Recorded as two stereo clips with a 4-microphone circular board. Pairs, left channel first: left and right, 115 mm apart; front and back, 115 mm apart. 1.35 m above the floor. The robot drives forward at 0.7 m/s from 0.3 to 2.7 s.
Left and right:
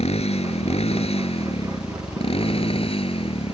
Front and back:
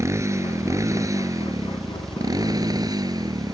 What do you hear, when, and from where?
0.0 s a motorcycle: 115° left; by 3.5 s 125° left